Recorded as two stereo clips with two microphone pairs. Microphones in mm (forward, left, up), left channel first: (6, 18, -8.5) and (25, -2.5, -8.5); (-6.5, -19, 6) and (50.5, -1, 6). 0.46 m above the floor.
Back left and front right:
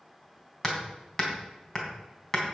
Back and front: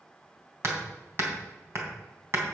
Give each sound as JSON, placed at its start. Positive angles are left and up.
{"t": 0.6, "sound": "hammering", "azimuth_deg": 60, "distance_m": 3.0}